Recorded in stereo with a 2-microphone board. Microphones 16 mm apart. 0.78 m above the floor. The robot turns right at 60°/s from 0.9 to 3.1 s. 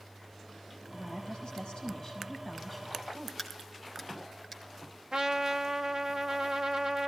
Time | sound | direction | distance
0.9 | a woman speaking | 75° left | 6.5 m
3.4 | a crack | 25° right (ahead or behind) | 4.5 m
5.1 | a trumpet | 50° right (ahead or behind) | 1.1 m